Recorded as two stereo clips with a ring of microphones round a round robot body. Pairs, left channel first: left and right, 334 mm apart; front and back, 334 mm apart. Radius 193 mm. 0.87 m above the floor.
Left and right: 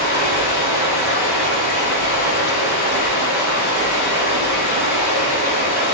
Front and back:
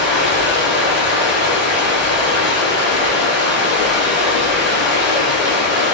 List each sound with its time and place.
0.0 s running water: 95° left, 1.8 m